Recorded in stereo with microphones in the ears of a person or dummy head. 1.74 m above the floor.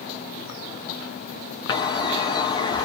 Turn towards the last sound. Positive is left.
turn(degrees=25)  # may be behind; listen again after turning